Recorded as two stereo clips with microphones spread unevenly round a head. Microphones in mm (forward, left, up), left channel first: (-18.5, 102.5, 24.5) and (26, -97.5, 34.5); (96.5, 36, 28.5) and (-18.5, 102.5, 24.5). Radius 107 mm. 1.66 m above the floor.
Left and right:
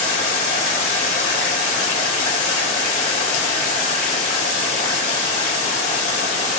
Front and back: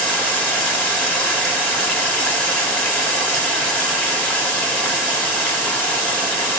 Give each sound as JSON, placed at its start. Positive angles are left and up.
{"t": 0.0, "sound": "running water", "azimuth_deg": 45, "distance_m": 1.9}